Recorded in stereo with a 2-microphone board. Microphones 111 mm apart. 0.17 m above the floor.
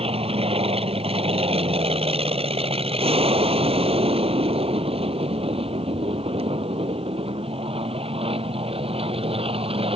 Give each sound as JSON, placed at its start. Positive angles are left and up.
{"t": 0.0, "sound": "an aircraft", "side_deg": -60}